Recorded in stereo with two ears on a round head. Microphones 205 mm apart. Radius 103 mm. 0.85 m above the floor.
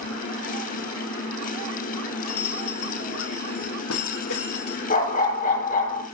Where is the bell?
70° left (ahead or behind), 2.5 m.